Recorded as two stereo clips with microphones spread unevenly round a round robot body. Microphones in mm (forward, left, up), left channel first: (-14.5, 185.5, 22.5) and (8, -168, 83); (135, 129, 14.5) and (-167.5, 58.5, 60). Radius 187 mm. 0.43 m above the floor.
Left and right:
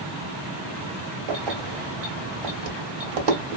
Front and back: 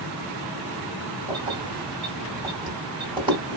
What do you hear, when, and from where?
1.3 s keys jangling: 85° right, 1.8 m